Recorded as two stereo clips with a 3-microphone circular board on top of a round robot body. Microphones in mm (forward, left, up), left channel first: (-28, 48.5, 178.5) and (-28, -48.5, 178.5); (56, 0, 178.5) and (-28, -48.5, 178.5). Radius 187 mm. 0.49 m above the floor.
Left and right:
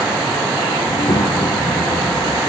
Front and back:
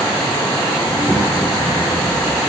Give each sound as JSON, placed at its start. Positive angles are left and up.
{"t": 0.8, "sound": "a child speaking", "azimuth_deg": 130, "distance_m": 3.5}